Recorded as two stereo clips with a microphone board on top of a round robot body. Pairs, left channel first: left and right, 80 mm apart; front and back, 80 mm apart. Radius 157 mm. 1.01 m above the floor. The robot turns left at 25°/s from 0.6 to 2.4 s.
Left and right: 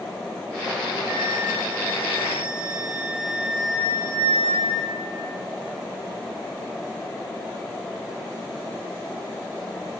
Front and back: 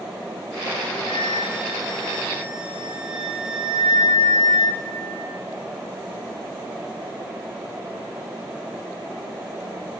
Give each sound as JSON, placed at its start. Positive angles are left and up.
{"t": 1.1, "sound": "a flute", "azimuth_deg": -110, "distance_m": 3.0}